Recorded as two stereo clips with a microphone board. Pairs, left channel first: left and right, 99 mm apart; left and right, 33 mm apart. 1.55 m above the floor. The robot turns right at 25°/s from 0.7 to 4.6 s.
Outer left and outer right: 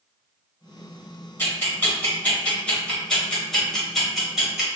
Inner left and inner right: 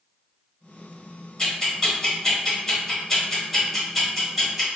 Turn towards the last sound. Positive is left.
turn(degrees=-5)  # may be behind; listen again after turning